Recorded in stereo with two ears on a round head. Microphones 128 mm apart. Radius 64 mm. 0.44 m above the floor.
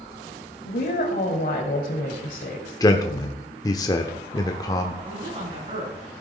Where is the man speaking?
25° left (ahead or behind), 0.8 m.